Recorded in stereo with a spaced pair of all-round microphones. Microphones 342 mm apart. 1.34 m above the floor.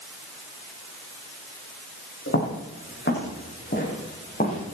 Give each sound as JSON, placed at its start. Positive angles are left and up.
{"t": 2.3, "sound": "footsteps", "side_deg": 35, "distance_m": 5.5}